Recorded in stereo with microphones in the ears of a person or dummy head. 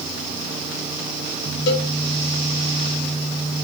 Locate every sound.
1.7 s a cowbell: 60° left (ahead or behind), 3.5 m